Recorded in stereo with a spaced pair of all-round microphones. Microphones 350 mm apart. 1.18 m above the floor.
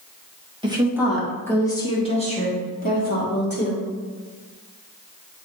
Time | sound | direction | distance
0.6 | a woman speaking | 15° right (ahead or behind) | 1.4 m